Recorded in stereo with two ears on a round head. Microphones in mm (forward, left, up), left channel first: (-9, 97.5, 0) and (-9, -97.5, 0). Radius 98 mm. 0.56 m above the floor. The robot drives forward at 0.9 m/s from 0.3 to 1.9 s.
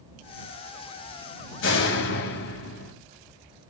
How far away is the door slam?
About 2.5 m.